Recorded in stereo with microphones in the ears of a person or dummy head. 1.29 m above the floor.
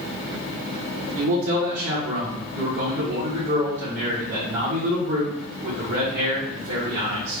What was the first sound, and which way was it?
A man speaking, 60° right (ahead or behind).